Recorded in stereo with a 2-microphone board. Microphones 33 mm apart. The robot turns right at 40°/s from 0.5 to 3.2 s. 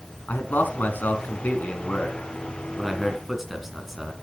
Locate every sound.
0.3 s a man speaking: 60° left (ahead or behind), 2.5 m; by 4.1 s 10° right (ahead or behind), 2.5 m